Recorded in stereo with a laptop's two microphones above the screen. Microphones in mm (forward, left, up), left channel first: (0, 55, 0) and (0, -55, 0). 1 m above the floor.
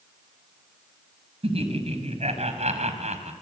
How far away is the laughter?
About 5.5 m.